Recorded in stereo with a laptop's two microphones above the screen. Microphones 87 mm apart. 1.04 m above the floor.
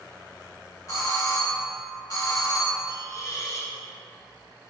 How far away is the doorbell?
About 1.5 m.